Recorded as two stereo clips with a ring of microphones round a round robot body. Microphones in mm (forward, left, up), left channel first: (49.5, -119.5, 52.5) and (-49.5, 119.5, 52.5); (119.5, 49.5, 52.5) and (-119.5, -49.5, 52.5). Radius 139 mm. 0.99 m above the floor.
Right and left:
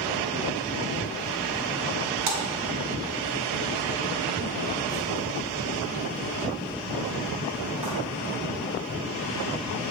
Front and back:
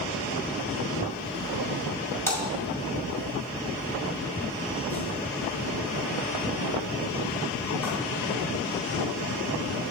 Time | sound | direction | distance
2.3 | a splash | 105° left | 2.0 m